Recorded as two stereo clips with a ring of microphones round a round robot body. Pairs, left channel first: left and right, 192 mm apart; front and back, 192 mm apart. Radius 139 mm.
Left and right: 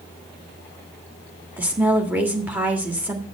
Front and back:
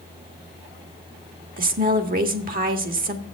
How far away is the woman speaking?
About 1.6 m.